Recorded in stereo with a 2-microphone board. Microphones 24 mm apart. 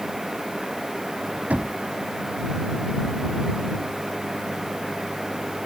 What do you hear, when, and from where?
1.5 s knocking: 85° right